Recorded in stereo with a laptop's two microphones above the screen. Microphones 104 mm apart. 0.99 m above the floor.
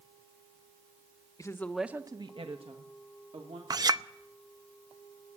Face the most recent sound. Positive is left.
turn(degrees=-40)  # may be behind; listen again after turning